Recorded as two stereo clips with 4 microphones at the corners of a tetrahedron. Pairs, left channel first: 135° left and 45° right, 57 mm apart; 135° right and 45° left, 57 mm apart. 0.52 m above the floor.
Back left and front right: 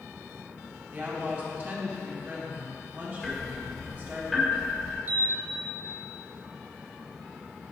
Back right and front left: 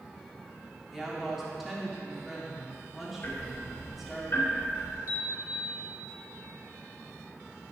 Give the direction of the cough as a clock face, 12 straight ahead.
No cough in this recording.